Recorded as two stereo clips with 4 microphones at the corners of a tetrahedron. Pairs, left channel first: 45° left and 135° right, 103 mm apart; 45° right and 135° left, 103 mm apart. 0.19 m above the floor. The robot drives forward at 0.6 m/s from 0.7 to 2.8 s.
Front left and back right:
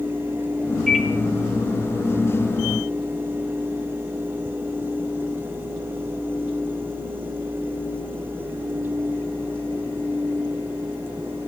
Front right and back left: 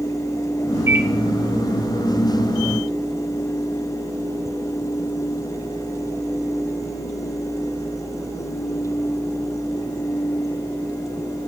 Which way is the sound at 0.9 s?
130° left.